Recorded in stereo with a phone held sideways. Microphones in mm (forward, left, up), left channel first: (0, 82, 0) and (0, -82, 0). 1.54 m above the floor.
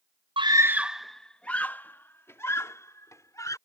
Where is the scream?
35° right (ahead or behind); by 3.6 s 20° left (ahead or behind).